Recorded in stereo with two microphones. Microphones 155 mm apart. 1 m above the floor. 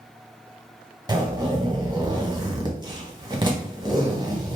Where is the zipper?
30° right (ahead or behind), 1.1 m.